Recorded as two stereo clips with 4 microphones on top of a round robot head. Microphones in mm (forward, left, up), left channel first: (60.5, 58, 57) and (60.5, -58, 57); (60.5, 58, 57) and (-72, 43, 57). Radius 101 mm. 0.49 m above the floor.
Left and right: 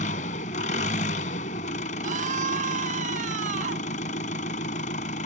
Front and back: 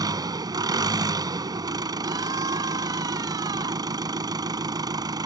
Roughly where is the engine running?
Behind left.